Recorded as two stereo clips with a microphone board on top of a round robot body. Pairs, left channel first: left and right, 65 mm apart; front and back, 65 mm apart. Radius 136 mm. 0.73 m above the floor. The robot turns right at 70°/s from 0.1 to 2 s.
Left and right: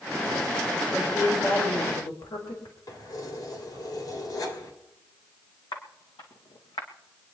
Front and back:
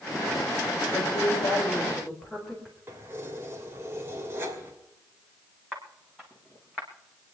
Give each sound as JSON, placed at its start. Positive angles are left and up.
{"t": 0.9, "sound": "a woman speaking", "azimuth_deg": 5, "distance_m": 4.0}
{"t": 2.9, "sound": "keys jangling", "azimuth_deg": 125, "distance_m": 3.0}
{"t": 5.7, "sound": "footsteps", "azimuth_deg": 95, "distance_m": 3.0}